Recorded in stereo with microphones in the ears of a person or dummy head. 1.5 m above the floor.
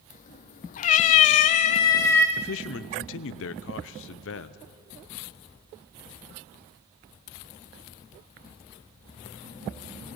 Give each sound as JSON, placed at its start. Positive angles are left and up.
{"t": 0.1, "sound": "a cat meowing", "side_deg": 45, "distance_m": 1.4}
{"t": 2.4, "sound": "a man speaking", "side_deg": 75, "distance_m": 0.8}